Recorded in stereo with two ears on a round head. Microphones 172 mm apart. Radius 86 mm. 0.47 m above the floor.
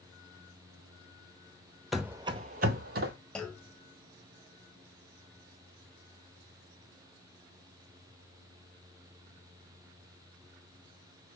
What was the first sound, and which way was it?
Running footsteps, centre (ahead or behind).